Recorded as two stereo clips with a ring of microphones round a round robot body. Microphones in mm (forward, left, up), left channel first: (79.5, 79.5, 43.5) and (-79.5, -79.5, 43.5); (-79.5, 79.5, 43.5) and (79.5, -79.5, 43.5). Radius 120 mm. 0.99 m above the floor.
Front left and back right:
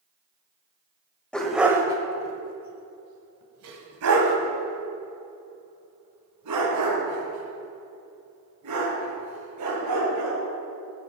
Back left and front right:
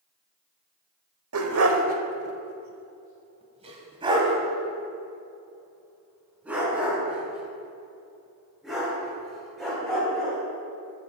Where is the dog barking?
40° right, 1.1 m; by 10.4 s 135° right, 5 m.